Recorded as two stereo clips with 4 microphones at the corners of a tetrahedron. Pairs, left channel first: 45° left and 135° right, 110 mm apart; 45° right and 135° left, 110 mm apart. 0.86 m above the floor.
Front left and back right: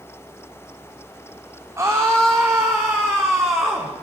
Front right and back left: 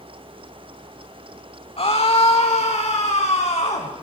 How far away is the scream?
About 2 m.